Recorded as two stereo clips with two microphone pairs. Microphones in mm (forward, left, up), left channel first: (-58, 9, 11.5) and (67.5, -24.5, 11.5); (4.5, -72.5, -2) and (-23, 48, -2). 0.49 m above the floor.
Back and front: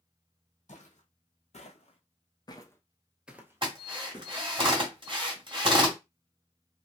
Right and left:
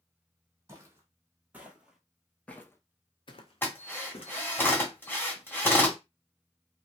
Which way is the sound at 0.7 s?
170° left.